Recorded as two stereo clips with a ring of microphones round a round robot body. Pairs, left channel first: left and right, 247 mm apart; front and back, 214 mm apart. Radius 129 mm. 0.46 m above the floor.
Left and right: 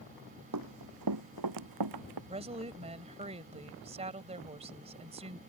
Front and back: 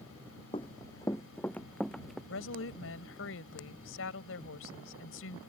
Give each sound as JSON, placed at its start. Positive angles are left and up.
{"t": 0.5, "sound": "running footsteps", "azimuth_deg": -70}
{"t": 2.3, "sound": "a woman speaking", "azimuth_deg": -25}